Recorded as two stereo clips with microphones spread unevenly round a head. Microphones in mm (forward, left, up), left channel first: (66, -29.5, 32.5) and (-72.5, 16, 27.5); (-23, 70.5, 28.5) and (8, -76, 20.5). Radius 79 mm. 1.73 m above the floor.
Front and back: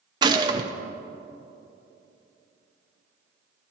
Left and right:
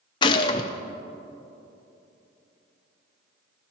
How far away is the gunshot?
About 0.6 m.